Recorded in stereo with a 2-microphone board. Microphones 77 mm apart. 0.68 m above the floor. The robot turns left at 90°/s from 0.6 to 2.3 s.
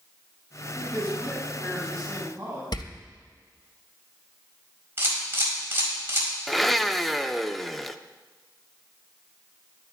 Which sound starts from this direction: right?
A camera shutter, at 5.0 s.